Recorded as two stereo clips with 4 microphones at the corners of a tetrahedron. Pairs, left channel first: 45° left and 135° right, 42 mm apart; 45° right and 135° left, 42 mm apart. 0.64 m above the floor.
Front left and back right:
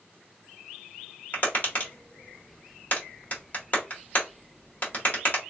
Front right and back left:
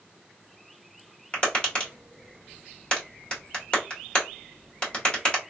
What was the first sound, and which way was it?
Tapping, 15° left.